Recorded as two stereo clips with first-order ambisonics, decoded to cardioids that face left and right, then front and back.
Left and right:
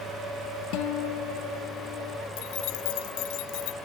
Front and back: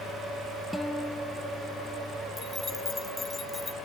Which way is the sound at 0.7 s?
85° left.